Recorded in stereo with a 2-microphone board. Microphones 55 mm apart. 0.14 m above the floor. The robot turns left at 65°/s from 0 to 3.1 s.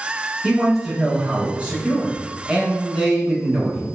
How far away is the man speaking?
About 1.1 m.